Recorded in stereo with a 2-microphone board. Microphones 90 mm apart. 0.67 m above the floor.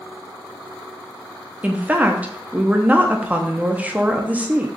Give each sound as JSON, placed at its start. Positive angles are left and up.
{"t": 1.6, "sound": "a woman speaking", "side_deg": -15, "distance_m": 0.6}